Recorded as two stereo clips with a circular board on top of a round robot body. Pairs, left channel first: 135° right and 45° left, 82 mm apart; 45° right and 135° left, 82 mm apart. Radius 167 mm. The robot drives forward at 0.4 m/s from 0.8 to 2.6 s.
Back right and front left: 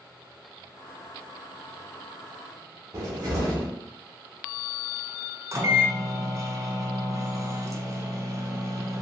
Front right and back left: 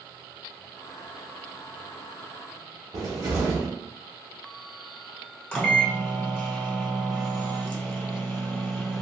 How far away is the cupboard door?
About 0.5 m.